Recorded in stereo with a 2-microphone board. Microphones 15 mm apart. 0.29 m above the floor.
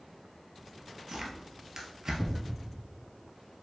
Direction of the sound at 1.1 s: 35° right (ahead or behind).